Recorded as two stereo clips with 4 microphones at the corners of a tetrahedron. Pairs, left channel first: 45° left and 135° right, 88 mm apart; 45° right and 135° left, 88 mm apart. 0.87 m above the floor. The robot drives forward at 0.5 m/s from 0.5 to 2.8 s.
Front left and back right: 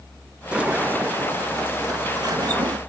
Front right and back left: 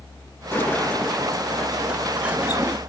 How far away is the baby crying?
No baby crying in this recording.